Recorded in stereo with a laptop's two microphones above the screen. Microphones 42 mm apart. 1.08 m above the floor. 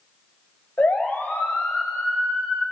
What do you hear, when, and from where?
0.8 s a siren: 45° left (ahead or behind), 4 m